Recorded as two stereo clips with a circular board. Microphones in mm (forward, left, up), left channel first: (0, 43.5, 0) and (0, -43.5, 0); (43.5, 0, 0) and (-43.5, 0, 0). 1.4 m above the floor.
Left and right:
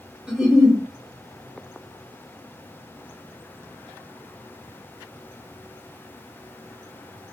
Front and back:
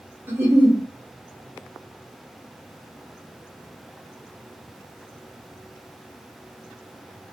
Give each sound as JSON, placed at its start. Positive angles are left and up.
{"t": 0.3, "sound": "a giggle", "azimuth_deg": -155, "distance_m": 1.2}